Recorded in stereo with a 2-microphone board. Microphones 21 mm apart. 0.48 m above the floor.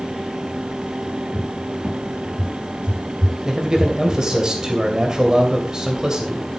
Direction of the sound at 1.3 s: 60° right (ahead or behind).